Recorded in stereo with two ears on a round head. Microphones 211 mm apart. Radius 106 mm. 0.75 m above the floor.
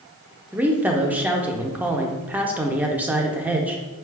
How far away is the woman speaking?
About 0.5 m.